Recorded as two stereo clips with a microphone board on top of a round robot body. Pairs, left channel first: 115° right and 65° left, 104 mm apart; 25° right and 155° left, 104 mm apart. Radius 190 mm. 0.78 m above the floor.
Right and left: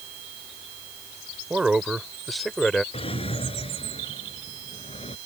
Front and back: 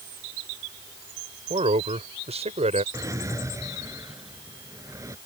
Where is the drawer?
145° right.